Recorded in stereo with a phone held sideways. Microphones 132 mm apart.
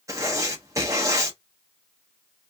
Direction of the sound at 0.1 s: 25° right (ahead or behind).